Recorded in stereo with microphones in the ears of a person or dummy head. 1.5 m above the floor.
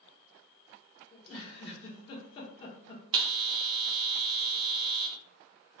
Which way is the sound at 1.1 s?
35° left (ahead or behind).